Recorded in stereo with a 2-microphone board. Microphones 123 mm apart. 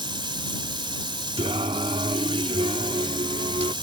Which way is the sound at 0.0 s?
40° right (ahead or behind).